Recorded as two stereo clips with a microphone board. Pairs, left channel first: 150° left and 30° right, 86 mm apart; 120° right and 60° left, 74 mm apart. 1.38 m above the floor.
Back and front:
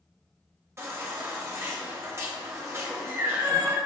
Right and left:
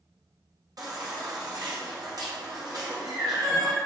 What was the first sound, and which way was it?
A baby crying, 30° left.